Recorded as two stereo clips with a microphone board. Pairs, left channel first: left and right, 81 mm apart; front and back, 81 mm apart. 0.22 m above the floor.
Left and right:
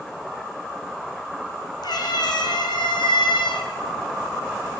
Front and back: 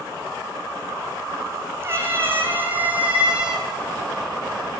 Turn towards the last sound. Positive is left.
turn(degrees=100)